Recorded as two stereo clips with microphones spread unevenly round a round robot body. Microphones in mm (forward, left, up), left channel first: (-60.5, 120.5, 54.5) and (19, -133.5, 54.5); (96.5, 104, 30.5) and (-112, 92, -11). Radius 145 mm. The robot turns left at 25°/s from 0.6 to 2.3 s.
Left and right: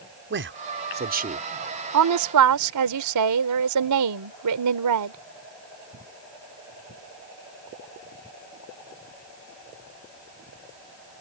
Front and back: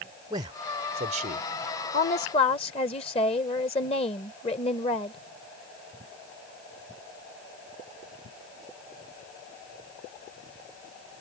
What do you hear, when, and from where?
0.3 s a man speaking: 110° right; by 1.5 s 135° right
1.9 s a woman speaking: 60° right; by 5.2 s 70° right